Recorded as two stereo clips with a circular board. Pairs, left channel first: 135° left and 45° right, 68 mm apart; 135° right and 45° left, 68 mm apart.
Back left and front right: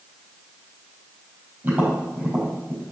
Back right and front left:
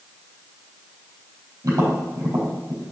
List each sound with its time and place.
1.6 s tapping: 15° left, 4 m